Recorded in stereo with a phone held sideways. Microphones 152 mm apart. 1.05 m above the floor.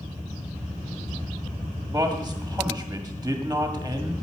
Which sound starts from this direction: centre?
A man speaking, at 1.9 s.